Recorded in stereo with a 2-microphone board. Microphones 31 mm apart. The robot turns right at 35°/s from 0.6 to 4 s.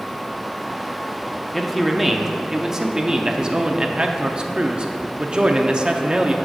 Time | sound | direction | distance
1.5 | a man speaking | 5° left (ahead or behind) | 0.6 m